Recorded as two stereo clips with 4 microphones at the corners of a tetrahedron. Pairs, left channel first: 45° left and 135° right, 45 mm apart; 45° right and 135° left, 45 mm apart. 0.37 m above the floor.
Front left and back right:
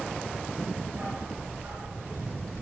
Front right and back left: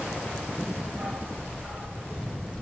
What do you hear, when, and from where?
0.9 s a dog barking: 140° right, 6.5 m